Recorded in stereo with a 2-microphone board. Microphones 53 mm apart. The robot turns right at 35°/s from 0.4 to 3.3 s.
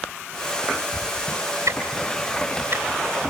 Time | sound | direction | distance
1.7 | ticking | 75° right (ahead or behind) | 3.5 m